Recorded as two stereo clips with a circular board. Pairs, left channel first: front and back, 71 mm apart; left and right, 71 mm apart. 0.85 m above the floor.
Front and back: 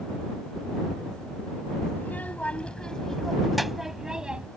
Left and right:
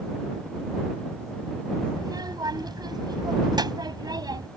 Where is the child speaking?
65° right; by 4.5 s 105° right.